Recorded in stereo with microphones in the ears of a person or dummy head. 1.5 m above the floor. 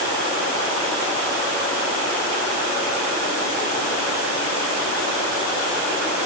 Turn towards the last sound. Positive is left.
No sound to turn to.